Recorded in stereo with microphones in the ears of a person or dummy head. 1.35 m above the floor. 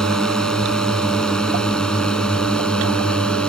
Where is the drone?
Centre (ahead or behind).